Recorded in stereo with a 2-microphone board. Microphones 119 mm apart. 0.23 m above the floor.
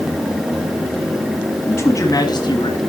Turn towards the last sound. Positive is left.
turn(degrees=50)  # may be behind; listen again after turning